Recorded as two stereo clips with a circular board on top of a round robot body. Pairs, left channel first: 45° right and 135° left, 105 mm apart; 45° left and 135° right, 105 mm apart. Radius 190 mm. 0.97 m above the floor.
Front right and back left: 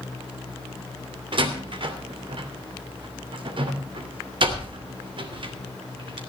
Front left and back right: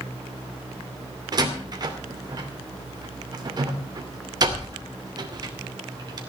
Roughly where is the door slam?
Behind.